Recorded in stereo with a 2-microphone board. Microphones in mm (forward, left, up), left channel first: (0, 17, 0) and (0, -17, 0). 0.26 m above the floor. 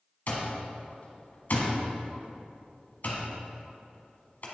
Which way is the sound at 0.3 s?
55° left (ahead or behind).